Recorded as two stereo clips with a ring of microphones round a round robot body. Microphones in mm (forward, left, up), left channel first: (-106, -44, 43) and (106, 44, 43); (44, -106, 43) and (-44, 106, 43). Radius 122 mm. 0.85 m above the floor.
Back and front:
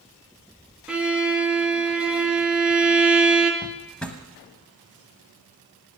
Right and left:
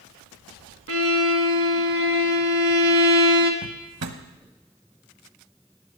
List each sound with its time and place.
0.9 s a violin: 105° left, 1.5 m
3.6 s a drawer: 115° left, 1.1 m